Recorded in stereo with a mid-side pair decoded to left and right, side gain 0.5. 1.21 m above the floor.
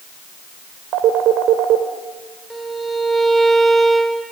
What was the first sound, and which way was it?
A phone ringing, 70° right.